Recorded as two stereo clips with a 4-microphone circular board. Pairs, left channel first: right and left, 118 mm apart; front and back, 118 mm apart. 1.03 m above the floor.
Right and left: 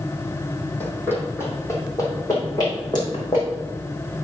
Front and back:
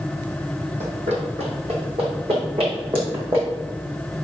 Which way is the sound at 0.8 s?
165° right.